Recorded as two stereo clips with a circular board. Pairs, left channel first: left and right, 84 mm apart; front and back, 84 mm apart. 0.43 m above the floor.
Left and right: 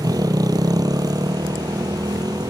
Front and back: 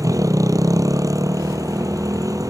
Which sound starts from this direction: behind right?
A motorcycle, at 0.0 s.